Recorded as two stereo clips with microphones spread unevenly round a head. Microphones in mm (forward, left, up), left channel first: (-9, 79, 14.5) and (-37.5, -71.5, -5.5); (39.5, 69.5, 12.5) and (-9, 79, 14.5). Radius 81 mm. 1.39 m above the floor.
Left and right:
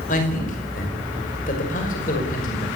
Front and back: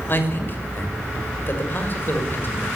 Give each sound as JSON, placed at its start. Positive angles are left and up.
{"t": 0.1, "sound": "a man speaking", "azimuth_deg": 35, "distance_m": 6.0}